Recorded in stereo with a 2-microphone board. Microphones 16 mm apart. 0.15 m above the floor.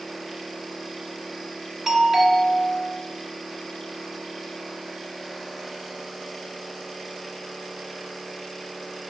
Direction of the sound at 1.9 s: 10° right (ahead or behind).